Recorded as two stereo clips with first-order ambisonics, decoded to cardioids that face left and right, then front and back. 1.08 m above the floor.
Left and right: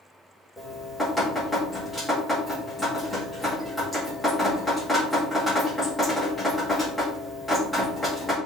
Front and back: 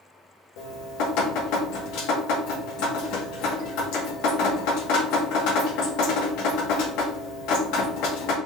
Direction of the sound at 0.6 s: 10° left.